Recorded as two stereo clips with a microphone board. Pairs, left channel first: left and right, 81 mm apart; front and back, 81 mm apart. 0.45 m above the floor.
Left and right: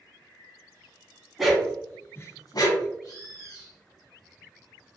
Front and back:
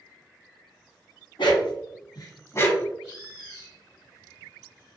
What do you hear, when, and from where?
1.4 s a dog barking: straight ahead, 0.8 m; by 2.9 s 70° left, 0.7 m
3.0 s a bird: 100° left, 1.9 m